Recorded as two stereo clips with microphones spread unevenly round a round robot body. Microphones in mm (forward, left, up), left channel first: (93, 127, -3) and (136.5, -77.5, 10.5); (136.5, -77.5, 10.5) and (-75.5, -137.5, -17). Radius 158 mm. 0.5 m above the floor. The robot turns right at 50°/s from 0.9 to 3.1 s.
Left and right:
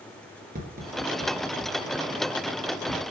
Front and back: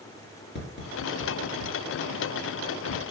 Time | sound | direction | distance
0.6 | tapping | 30° right | 2.5 m